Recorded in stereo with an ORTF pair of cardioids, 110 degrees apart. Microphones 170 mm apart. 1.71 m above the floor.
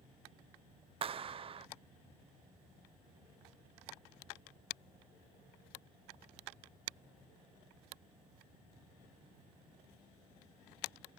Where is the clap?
35° right.